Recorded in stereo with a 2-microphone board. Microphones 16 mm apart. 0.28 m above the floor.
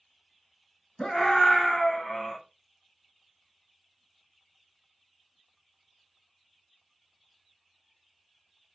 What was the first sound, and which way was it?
A scream, 50° left (ahead or behind).